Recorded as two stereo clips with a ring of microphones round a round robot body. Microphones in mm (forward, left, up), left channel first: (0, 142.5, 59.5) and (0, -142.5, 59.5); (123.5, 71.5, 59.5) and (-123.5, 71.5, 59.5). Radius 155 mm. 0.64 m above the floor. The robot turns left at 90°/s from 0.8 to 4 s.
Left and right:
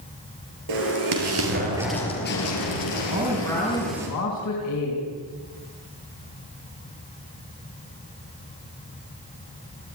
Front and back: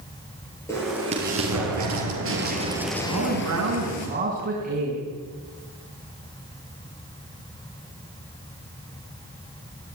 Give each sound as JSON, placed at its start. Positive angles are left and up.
{"t": 0.7, "sound": "an explosion", "azimuth_deg": -80, "distance_m": 5.0}
{"t": 3.1, "sound": "a man speaking", "azimuth_deg": -155, "distance_m": 6.0}